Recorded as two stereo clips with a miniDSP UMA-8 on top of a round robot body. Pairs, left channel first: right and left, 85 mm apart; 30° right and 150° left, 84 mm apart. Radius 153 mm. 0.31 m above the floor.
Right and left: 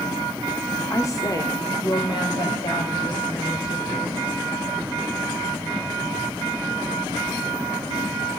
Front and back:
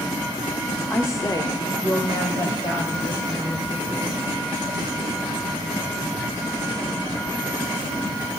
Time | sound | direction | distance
0.9 | a woman speaking | 65° right | 1.2 m